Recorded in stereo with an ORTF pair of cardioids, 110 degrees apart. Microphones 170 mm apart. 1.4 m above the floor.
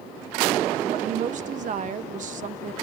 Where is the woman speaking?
50° right, 1.2 m.